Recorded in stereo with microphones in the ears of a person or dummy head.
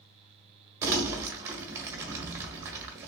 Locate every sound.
0.8 s crumpling: 15° right (ahead or behind), 1.0 m